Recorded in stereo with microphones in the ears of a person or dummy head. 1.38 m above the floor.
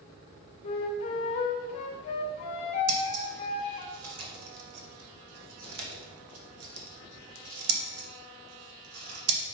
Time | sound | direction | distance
0.6 | a flute | 35° left (ahead or behind) | 0.8 m
2.9 | scissors | 80° right | 1.6 m